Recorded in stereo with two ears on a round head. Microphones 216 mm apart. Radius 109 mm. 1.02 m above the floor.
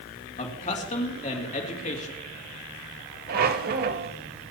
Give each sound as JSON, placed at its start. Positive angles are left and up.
{"t": 0.4, "sound": "a man speaking", "side_deg": 30, "distance_m": 2.5}
{"t": 3.3, "sound": "a squeak", "side_deg": -40, "distance_m": 1.0}